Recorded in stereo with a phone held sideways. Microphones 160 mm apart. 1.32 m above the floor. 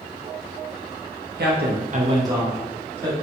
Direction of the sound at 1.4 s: 90° right.